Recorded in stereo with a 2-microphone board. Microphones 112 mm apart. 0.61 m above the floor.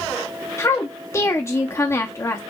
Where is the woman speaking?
25° left (ahead or behind), 0.7 m.